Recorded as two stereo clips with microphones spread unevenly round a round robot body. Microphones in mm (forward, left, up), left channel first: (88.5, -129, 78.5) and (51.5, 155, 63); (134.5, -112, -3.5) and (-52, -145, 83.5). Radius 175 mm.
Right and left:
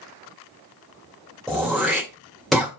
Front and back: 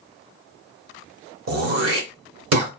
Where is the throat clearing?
175° right, 3 m.